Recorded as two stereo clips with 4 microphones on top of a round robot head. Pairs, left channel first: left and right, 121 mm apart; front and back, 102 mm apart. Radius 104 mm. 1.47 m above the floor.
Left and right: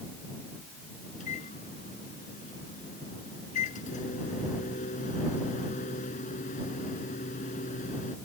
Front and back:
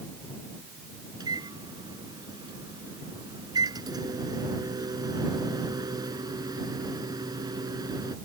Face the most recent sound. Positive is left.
turn(degrees=125)